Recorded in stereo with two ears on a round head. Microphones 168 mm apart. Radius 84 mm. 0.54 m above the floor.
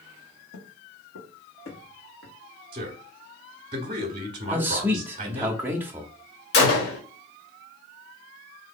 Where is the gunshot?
60° left (ahead or behind), 1.0 m.